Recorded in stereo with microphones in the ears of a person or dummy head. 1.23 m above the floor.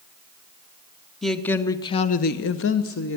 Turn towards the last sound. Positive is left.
turn(degrees=60)  # may be behind; listen again after turning